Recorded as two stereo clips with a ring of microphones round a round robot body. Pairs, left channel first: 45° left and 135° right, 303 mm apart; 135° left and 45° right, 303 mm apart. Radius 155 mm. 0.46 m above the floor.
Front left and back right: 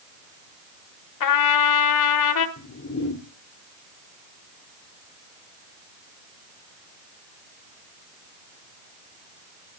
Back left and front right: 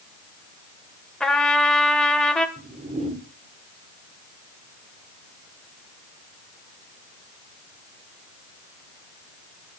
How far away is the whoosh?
About 1.6 m.